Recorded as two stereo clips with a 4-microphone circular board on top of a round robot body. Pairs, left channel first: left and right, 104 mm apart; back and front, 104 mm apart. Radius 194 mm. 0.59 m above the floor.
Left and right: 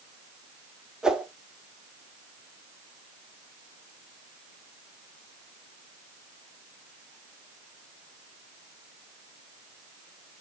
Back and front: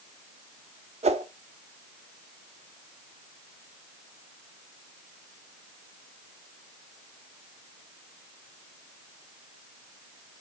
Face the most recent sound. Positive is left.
turn(degrees=-5)